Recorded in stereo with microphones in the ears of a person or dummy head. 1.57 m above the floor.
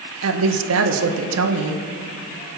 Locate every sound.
0.2 s a woman speaking: 75° right (ahead or behind), 1.7 m